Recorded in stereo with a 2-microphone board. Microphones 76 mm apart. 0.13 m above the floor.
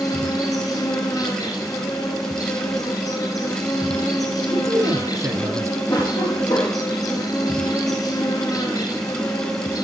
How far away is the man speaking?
About 2 m.